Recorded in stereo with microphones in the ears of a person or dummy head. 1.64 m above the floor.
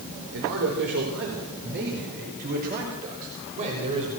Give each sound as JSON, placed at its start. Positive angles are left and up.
{"t": 0.3, "sound": "a man speaking", "side_deg": -80, "distance_m": 5.0}